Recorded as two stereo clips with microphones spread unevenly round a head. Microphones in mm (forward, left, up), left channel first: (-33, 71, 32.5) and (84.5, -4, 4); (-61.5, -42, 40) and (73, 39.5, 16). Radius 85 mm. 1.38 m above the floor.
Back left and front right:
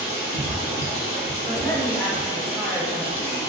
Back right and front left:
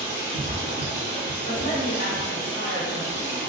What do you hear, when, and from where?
0.0 s running water: 145° left, 1.4 m
1.5 s a man speaking: 110° right, 1.2 m